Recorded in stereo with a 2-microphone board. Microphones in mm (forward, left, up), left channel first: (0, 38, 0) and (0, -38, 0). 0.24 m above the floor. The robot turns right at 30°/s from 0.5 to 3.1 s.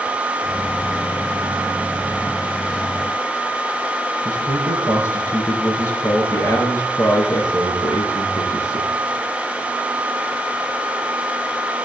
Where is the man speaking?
30° left (ahead or behind), 4.5 m.